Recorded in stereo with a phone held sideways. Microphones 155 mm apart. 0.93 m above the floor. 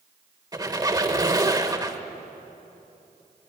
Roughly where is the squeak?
Right.